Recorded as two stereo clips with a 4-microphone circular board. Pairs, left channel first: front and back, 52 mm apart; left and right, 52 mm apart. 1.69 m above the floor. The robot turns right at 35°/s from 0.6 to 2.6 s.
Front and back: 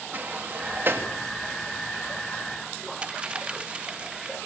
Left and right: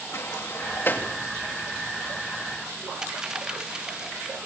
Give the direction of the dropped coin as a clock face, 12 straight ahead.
5 o'clock.